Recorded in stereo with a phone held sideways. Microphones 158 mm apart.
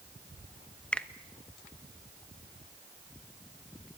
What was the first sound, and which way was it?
A finger snap, 5° left (ahead or behind).